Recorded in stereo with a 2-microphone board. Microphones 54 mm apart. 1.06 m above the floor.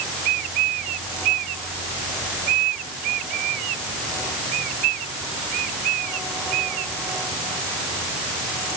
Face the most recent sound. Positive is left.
No sound to turn to.